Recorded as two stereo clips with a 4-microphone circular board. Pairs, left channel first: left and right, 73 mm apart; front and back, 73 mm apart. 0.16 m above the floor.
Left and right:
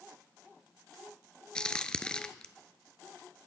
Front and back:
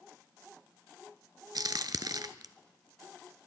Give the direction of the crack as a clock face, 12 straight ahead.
7 o'clock.